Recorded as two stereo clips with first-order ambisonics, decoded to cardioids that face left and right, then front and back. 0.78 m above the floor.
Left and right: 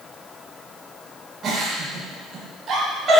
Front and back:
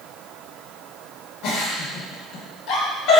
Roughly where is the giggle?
Ahead right.